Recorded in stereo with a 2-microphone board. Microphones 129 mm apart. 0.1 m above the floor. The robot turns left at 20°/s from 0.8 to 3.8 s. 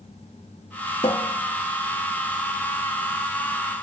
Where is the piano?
No piano in this recording.